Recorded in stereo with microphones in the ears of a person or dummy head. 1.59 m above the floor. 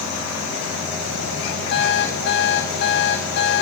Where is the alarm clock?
60° left (ahead or behind), 2 m.